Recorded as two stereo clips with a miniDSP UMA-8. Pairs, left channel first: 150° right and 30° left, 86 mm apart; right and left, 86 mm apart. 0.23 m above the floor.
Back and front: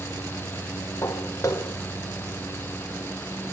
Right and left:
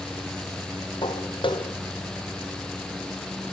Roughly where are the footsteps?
Right.